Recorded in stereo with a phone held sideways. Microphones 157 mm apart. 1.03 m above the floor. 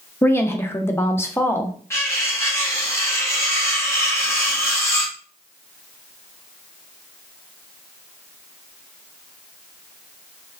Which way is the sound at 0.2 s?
15° left (ahead or behind).